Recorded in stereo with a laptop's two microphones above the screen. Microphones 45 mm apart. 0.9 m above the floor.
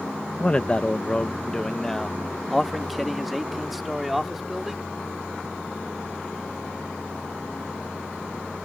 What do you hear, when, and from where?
0.4 s a man speaking: 25° left (ahead or behind); by 4.9 s 5° right (ahead or behind)